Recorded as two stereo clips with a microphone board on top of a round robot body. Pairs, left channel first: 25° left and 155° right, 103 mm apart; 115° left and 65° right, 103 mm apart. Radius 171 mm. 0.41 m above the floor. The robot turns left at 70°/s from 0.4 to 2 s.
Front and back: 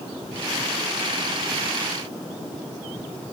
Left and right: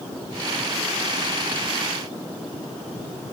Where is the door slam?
No door slam in this recording.